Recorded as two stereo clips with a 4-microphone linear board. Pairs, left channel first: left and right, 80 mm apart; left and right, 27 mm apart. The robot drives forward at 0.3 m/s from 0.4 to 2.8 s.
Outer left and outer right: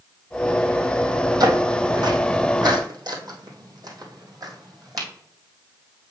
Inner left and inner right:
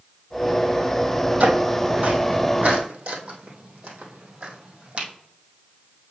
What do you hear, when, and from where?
1.4 s footsteps: 55° right (ahead or behind), 2 m; by 5.1 s 50° right (ahead or behind), 2.5 m